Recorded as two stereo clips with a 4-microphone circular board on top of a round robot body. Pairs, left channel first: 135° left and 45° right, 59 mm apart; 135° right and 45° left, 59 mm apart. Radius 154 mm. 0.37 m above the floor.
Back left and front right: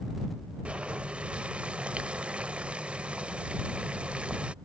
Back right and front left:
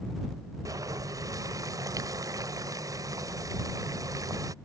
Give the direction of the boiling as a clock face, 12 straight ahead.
11 o'clock.